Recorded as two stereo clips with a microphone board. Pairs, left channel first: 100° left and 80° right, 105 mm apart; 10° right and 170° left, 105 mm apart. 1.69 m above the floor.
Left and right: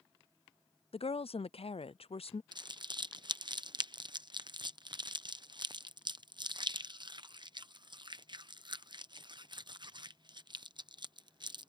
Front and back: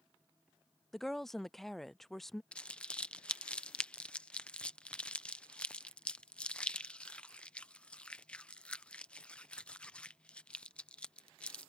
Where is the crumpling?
85° right.